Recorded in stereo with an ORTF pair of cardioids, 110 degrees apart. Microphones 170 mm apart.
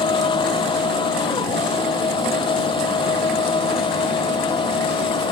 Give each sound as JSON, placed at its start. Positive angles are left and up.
{"t": 0.0, "sound": "a machine running", "azimuth_deg": 30}